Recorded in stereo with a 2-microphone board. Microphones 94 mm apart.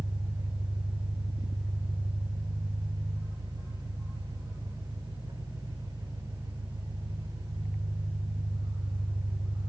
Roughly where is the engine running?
Right.